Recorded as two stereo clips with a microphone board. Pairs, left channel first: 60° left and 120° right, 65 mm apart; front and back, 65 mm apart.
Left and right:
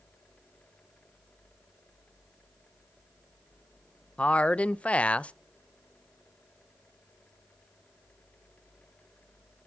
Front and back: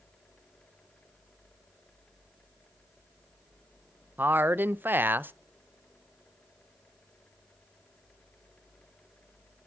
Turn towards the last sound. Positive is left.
turn(degrees=130)